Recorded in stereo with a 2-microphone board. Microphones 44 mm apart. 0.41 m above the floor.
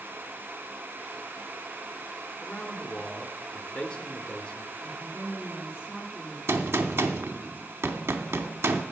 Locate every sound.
2.4 s a man speaking: 25° left (ahead or behind), 1.0 m
4.8 s a woman speaking: 20° right (ahead or behind), 6 m
6.5 s a gunshot: 75° right (ahead or behind), 0.8 m